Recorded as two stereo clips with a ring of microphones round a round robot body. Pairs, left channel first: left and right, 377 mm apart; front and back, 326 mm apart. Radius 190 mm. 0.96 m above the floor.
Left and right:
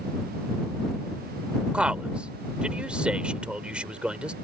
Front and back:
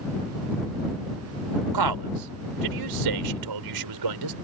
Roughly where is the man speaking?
Behind.